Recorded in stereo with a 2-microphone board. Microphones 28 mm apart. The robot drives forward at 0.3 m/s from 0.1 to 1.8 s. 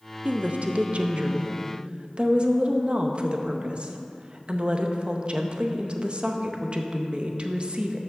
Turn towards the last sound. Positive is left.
turn(degrees=-40)  # may be behind; listen again after turning